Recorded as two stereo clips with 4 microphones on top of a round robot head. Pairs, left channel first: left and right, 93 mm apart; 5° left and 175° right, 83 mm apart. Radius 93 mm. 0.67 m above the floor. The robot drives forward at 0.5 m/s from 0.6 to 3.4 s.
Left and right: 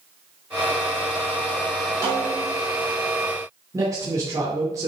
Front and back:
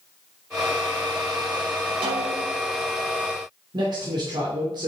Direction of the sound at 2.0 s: 150° right.